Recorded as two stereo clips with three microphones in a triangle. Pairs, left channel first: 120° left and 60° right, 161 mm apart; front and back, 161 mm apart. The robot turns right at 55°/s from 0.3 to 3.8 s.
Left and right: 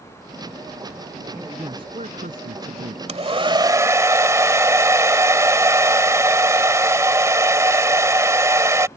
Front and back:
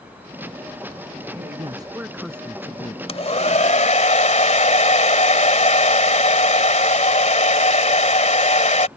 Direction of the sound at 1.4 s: 140° right.